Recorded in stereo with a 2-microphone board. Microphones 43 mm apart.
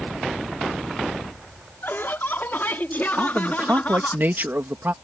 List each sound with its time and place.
1.8 s laughter: 60° left (ahead or behind); by 4.2 s 40° left (ahead or behind)
3.2 s a man speaking: 50° right (ahead or behind)